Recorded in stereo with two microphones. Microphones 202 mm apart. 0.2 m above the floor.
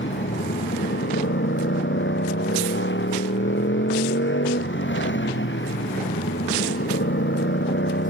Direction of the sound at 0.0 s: 70° left (ahead or behind).